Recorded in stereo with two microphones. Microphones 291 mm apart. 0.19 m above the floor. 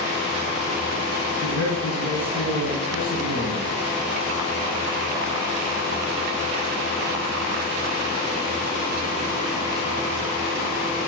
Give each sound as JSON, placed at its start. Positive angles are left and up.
{"t": 1.4, "sound": "a man speaking", "side_deg": 45, "distance_m": 2.0}